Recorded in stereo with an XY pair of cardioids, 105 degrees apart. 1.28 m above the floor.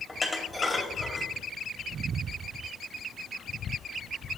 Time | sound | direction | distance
0.1 | dishes clattering | 10° left | 2 m